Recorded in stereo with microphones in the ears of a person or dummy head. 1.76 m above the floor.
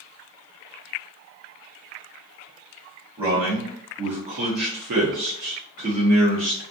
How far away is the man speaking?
About 1.2 m.